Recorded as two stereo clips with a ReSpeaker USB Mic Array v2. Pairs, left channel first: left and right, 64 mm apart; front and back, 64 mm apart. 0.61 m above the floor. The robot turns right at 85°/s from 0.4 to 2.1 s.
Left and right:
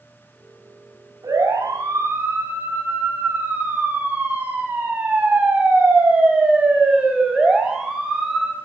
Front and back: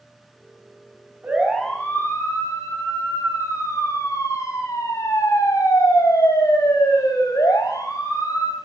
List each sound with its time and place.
1.2 s a siren: 115° right, 7.5 m; by 8.5 s 5° right, 6 m